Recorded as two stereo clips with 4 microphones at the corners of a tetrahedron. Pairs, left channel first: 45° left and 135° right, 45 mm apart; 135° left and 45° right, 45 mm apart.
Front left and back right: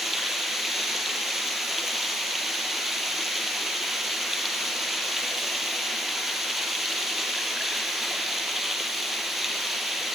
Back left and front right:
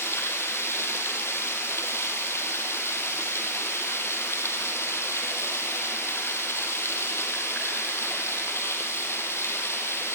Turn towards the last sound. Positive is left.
turn(degrees=140)